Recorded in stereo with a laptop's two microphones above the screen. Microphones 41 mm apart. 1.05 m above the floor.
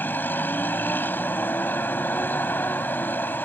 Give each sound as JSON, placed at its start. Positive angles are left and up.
{"t": 0.0, "sound": "a vehicle", "side_deg": 55}